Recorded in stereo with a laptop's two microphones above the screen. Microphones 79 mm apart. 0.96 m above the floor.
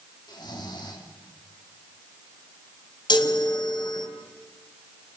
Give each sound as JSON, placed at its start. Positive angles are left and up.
{"t": 0.3, "sound": "snoring", "side_deg": 65, "distance_m": 2.5}
{"t": 3.1, "sound": "a chime", "side_deg": 70, "distance_m": 2.5}